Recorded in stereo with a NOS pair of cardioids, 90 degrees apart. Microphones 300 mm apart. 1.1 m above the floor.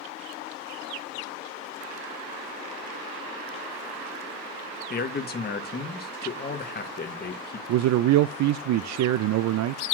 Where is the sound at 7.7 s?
65° right, 0.5 m.